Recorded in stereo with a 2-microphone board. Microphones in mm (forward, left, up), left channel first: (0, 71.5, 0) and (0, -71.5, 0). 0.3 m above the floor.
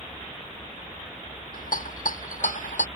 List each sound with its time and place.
1.5 s a rattle: 75° left (ahead or behind)